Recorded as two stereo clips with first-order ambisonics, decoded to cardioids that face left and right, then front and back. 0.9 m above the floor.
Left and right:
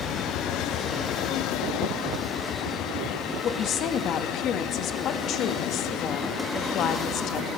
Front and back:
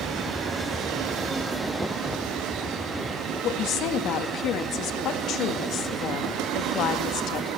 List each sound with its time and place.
3.4 s a woman speaking: 45° left, 1.2 m